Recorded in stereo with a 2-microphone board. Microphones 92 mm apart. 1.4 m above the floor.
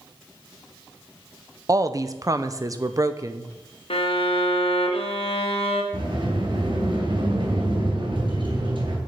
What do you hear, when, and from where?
1.7 s a woman speaking: 35° right (ahead or behind), 0.7 m
3.9 s a violin: 75° left (ahead or behind), 1.4 m
5.9 s a sliding door: 65° right (ahead or behind), 3.5 m